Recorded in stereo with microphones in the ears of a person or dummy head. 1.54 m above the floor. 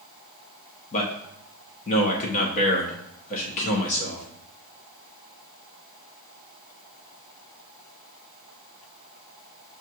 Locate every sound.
0.9 s a man speaking: 40° left (ahead or behind), 1.0 m